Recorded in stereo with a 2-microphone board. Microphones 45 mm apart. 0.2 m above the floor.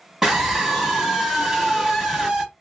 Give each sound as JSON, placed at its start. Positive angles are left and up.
{"t": 0.2, "sound": "a scream", "side_deg": -10, "distance_m": 1.1}